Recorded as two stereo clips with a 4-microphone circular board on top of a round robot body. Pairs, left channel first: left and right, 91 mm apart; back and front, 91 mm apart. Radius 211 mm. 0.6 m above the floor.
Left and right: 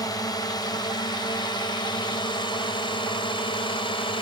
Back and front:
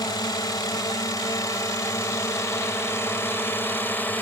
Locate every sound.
0.0 s a drone: 135° left; by 4.2 s 110° left